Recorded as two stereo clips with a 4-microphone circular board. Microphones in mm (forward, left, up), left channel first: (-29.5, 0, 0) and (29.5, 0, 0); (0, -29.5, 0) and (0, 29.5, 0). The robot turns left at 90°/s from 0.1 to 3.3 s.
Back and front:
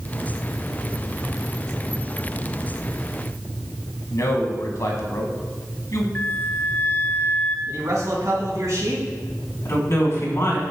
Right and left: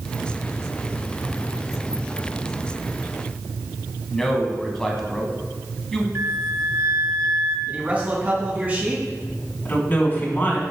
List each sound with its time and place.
4.1 s a man speaking: 170° right, 1.8 m
6.2 s a flute: 125° left, 1.0 m
7.7 s a man speaking: 25° left, 3 m
9.7 s a woman speaking: 145° right, 2.5 m